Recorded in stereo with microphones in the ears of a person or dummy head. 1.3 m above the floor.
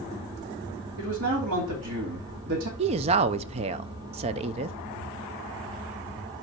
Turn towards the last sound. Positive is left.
turn(degrees=-35)  # may be behind; listen again after turning